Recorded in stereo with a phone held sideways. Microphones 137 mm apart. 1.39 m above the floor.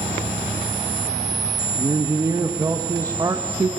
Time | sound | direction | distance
1.8 | a man speaking | 25° right (ahead or behind) | 1.2 m